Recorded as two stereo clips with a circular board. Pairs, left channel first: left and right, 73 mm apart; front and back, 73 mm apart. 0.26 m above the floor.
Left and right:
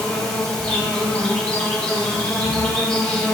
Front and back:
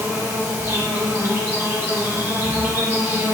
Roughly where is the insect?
Behind.